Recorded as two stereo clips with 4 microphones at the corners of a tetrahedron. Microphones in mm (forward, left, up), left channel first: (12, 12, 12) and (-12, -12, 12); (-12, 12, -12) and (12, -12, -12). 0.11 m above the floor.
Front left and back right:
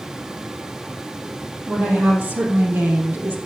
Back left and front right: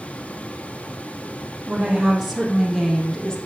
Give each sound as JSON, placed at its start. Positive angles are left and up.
{"t": 1.7, "sound": "a woman speaking", "azimuth_deg": -110, "distance_m": 4.0}